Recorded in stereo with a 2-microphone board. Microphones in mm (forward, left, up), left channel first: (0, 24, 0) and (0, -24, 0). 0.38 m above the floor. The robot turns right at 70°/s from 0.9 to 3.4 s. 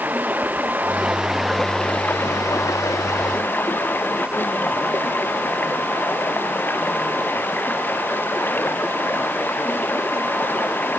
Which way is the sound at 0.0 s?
40° right.